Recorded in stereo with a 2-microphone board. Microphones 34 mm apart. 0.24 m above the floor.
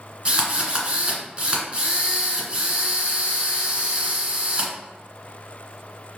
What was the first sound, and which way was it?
A drill, 30° right (ahead or behind).